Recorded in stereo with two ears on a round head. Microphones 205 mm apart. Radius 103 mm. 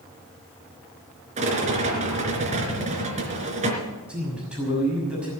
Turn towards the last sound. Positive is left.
turn(degrees=-5)  # may be behind; listen again after turning